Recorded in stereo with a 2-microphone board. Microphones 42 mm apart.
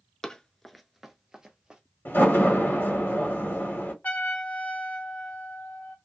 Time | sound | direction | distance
0.2 | running footsteps | 15° left (ahead or behind) | 0.5 m
2.0 | a door slam | 65° left (ahead or behind) | 1.5 m
4.0 | a trumpet | 45° left (ahead or behind) | 0.9 m